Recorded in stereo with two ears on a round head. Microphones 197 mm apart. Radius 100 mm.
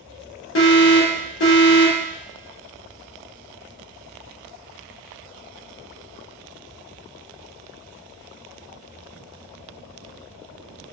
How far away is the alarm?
About 1.3 m.